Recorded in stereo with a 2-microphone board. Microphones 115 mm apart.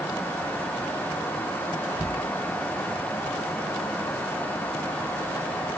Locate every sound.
Only background noise.